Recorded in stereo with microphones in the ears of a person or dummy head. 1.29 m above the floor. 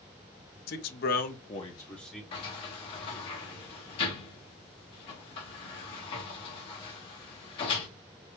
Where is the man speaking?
55° left (ahead or behind), 0.9 m; by 2.2 s centre (ahead or behind), 0.8 m.